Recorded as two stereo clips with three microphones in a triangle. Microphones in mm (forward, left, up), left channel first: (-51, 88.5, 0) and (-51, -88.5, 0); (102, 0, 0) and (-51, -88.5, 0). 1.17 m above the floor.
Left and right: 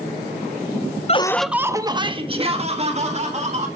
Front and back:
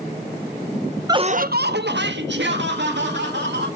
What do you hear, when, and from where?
1.1 s laughter: 145° left, 0.6 m; by 3.7 s 140° right, 3 m